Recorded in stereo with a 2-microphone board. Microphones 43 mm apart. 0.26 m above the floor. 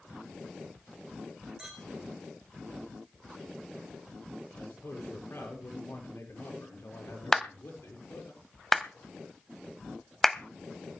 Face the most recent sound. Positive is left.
turn(degrees=5)  # may be behind; listen again after turning